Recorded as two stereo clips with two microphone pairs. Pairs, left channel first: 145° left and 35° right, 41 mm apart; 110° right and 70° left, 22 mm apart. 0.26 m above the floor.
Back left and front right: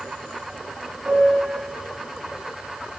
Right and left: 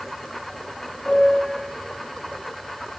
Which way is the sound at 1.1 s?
80° right.